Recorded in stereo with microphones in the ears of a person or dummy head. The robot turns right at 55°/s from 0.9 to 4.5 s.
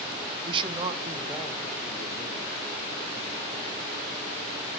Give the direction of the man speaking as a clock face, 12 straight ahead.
1 o'clock.